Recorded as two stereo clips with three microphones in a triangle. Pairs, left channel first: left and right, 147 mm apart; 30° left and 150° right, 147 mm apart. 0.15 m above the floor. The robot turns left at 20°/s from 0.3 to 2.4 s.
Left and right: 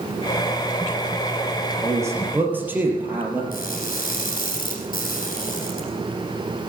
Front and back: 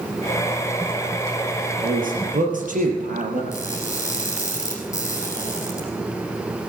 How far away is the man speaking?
About 3 m.